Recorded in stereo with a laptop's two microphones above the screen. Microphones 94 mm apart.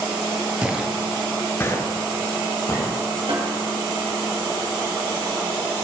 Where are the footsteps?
15° right (ahead or behind), 1.3 m; by 2.9 s 40° left (ahead or behind), 2.5 m.